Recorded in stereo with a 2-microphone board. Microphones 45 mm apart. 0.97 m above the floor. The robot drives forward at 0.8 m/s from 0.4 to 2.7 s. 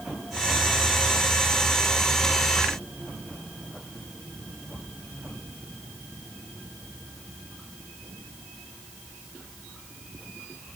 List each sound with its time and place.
Only background noise.